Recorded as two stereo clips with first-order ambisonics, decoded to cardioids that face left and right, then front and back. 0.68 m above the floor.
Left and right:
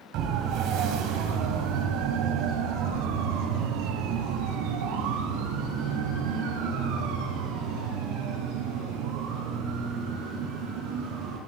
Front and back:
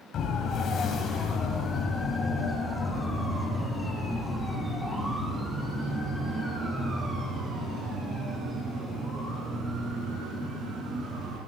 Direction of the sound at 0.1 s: 55° right.